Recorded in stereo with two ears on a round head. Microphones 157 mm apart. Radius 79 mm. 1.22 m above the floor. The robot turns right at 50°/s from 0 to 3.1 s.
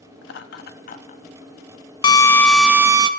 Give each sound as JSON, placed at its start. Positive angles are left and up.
{"t": 0.2, "sound": "laughter", "side_deg": 80, "distance_m": 2.5}
{"t": 2.0, "sound": "a drill", "azimuth_deg": 155, "distance_m": 1.2}